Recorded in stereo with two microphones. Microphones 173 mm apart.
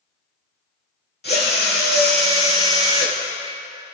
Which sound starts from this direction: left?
A drill, at 1.2 s.